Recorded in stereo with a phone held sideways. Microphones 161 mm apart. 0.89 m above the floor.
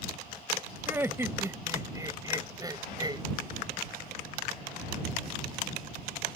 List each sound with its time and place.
0.9 s laughter: 15° right (ahead or behind); by 3.2 s 25° right (ahead or behind)